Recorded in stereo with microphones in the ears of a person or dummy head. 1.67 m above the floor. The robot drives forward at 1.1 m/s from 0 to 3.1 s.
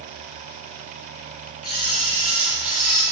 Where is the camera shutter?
50° left (ahead or behind), 6 m; by 3.0 s 40° left (ahead or behind), 7 m.